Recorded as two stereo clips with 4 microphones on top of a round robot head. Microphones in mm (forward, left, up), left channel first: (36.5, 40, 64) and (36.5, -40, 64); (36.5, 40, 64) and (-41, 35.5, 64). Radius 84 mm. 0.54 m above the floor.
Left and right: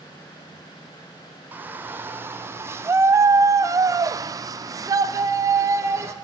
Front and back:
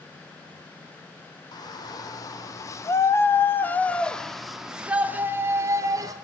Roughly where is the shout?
Ahead right.